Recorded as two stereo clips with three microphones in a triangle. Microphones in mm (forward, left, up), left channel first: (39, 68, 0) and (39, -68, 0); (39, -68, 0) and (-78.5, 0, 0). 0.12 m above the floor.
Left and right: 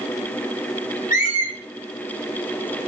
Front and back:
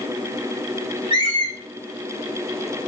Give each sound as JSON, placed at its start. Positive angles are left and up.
{"t": 1.1, "sound": "a squeak", "azimuth_deg": 95, "distance_m": 2.0}